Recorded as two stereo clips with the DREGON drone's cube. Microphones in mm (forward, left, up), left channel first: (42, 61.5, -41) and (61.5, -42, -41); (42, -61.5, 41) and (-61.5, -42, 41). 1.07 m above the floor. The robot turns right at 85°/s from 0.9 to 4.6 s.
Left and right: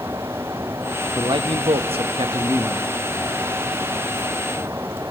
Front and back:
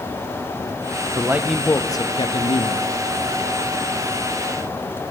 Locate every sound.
1.1 s a man speaking: 135° right, 1.1 m; by 2.9 s 15° left, 1.1 m